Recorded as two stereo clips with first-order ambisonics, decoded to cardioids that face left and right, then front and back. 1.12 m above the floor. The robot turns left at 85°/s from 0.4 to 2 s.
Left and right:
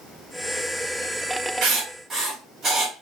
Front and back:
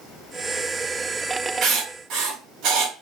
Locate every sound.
1.6 s writing: 125° right, 2.5 m; by 2.9 s 160° right, 2.5 m